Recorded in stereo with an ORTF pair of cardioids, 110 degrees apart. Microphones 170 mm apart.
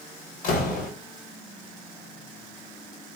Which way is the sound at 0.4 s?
55° left.